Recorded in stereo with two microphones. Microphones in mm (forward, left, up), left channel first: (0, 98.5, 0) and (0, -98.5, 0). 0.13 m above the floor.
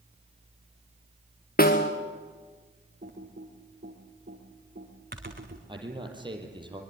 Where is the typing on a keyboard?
50° right (ahead or behind), 4 m.